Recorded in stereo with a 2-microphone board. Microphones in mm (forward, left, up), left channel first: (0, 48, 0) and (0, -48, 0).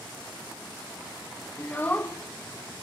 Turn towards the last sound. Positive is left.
turn(degrees=20)  # may be behind; listen again after turning